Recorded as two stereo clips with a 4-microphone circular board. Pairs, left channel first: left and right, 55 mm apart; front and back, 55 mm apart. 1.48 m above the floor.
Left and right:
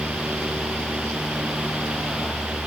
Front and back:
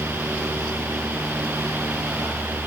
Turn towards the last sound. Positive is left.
No sound to turn to.